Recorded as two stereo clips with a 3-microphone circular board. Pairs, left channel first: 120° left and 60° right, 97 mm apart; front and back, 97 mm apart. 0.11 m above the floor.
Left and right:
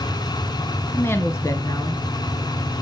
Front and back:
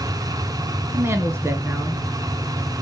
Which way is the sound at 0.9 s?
160° left.